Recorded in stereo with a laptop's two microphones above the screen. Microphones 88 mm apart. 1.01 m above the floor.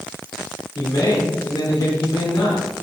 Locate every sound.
0.8 s a man speaking: 55° left (ahead or behind), 3.5 m